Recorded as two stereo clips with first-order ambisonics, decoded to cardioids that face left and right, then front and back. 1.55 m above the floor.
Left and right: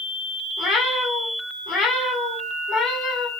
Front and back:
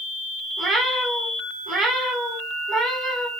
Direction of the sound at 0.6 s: 125° left.